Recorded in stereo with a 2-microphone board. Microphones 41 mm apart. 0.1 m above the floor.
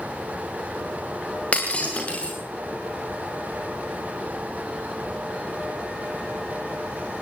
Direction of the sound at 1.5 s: 30° left (ahead or behind).